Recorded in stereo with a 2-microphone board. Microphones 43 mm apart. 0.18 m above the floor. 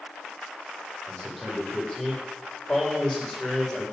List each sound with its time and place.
1.1 s a man speaking: 5° left (ahead or behind), 8 m